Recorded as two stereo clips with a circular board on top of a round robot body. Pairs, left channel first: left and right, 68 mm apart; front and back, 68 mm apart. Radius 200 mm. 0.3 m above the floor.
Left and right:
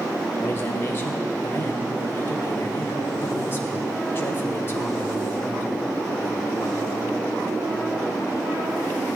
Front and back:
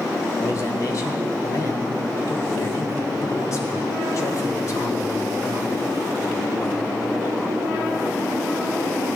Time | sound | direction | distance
0.4 | a man speaking | 35° left | 3 m